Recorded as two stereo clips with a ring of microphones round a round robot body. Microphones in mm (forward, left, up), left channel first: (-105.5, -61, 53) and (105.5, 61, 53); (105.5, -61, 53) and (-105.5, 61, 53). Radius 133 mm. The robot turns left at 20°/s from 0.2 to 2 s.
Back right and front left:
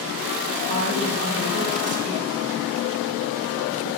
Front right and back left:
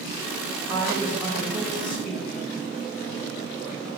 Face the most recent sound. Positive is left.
turn(degrees=55)